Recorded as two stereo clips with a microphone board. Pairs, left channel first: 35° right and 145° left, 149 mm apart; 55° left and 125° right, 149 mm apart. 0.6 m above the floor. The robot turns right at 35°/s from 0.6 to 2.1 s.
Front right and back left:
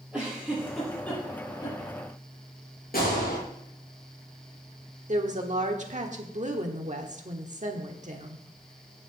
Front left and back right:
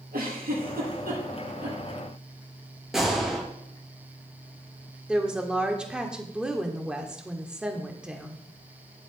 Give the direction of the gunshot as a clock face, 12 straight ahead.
1 o'clock.